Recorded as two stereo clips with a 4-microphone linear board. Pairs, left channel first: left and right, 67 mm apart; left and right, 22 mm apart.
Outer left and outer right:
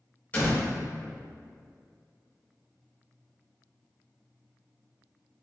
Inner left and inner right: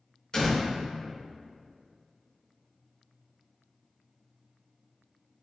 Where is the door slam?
25° left (ahead or behind), 0.9 m.